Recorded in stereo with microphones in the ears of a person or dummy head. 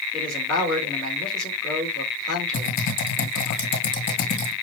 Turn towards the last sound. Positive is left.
turn(degrees=45)  # may be behind; listen again after turning